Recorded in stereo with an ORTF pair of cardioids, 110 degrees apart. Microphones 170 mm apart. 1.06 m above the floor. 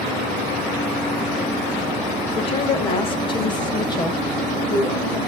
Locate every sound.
2.4 s a woman speaking: 35° left, 3.5 m; by 5.2 s 20° left, 5 m